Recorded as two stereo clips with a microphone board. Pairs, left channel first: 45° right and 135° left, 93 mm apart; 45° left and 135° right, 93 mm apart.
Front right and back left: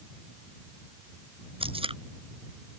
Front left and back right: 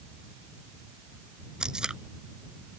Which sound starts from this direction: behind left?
Tape being pulled, at 1.6 s.